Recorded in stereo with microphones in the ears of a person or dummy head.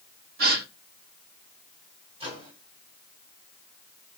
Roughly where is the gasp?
Right.